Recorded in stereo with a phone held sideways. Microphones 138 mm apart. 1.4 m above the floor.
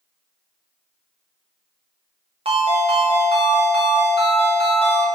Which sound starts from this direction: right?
A ringtone, at 2.5 s.